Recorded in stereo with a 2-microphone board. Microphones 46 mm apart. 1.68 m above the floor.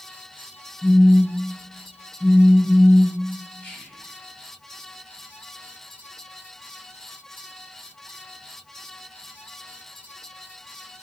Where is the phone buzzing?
Centre (ahead or behind), 0.7 m.